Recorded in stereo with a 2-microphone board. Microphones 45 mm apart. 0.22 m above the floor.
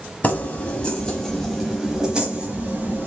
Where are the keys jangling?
30° left (ahead or behind), 1.1 m; by 3.1 s 35° right (ahead or behind), 1.2 m.